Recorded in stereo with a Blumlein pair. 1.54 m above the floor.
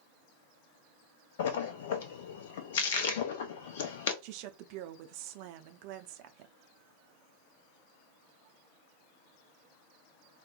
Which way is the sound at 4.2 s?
45° right.